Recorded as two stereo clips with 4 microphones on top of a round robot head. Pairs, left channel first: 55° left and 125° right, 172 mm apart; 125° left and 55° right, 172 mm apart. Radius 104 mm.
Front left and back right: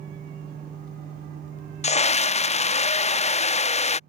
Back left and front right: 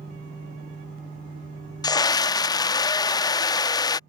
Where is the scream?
70° left.